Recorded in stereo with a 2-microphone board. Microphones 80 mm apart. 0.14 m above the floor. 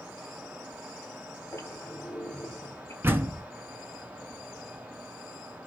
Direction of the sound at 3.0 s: 30° right (ahead or behind).